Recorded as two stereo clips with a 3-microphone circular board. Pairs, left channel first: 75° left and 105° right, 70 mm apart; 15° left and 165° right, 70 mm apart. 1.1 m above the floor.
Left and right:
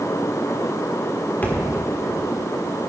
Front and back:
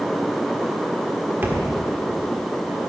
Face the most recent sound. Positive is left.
turn(degrees=140)